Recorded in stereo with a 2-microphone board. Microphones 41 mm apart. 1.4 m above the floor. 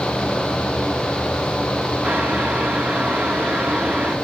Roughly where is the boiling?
Right.